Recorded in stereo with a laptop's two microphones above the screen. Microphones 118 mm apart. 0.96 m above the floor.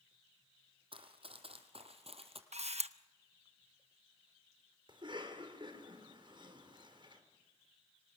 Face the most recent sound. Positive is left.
turn(degrees=-45)  # may be behind; listen again after turning